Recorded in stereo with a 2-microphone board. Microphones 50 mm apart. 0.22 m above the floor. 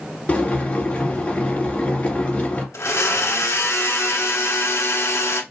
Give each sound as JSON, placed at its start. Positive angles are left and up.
{"t": 0.3, "sound": "boiling", "side_deg": 25, "distance_m": 2.0}
{"t": 2.7, "sound": "a blender", "side_deg": 70, "distance_m": 0.7}